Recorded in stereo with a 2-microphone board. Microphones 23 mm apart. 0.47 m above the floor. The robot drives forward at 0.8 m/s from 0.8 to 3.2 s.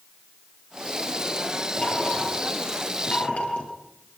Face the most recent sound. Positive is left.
turn(degrees=60)  # may be behind; listen again after turning